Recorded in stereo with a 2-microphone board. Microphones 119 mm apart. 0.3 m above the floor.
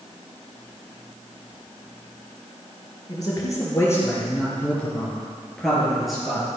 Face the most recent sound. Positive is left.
turn(degrees=-5)  # may be behind; listen again after turning